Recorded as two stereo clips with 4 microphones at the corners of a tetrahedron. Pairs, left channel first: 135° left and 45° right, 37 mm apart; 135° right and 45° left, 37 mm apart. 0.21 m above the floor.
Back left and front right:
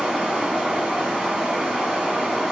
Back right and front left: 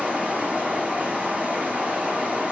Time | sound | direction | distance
0.0 | running water | 20° left | 1.4 m